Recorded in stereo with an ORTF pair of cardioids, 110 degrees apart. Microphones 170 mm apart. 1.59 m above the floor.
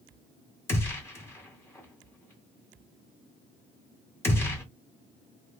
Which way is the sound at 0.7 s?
15° left.